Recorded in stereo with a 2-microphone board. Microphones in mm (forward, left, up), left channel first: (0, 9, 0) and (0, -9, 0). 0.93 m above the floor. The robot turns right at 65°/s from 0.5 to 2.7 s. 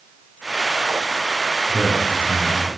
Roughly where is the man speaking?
Right.